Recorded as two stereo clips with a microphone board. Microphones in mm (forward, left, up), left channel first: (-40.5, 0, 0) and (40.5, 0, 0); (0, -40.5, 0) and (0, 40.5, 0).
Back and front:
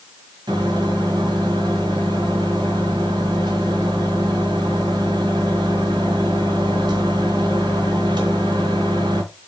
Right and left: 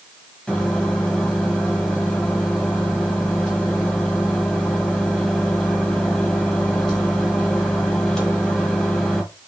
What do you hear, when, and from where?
0.5 s a microwave: 10° right, 1.5 m